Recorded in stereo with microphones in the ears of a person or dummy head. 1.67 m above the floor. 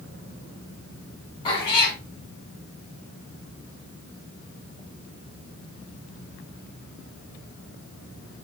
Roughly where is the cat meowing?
Left.